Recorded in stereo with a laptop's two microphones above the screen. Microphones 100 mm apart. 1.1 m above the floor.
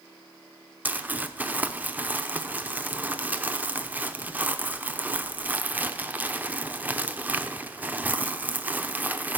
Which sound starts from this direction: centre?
Crumpling, at 0.8 s.